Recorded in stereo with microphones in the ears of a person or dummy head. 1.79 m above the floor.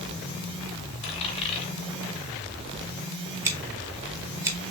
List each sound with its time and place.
1.0 s a dropped coin: 35° left (ahead or behind), 2 m
3.5 s scissors: 20° right (ahead or behind), 1.2 m